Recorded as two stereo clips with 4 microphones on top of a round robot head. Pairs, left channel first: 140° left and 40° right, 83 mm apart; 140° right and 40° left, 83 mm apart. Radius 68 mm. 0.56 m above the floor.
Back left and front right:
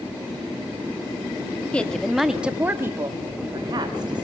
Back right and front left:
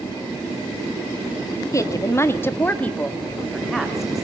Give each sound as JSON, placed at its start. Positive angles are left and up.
{"t": 1.7, "sound": "a woman speaking", "azimuth_deg": -150, "distance_m": 1.4}